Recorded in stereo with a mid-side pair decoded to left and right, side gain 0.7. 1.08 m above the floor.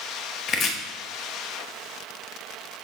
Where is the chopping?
45° left, 0.8 m.